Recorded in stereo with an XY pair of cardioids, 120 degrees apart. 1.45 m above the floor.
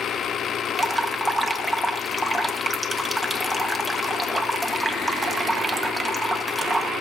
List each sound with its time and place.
0.8 s dripping: 10° right, 1.6 m